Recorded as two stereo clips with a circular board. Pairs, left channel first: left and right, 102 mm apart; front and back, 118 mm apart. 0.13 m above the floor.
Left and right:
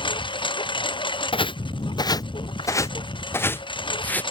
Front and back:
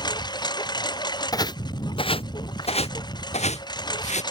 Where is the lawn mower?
55° left.